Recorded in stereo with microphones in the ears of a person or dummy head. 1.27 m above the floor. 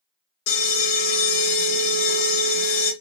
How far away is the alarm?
About 2.5 m.